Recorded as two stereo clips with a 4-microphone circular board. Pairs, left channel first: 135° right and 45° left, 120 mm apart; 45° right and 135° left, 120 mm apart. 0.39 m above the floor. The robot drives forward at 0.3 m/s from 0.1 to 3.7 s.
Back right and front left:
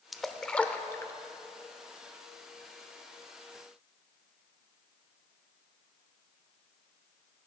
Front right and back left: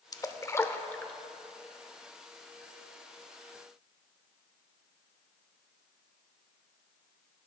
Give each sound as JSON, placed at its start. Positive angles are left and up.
{"t": 0.1, "sound": "a splash", "azimuth_deg": -45, "distance_m": 0.6}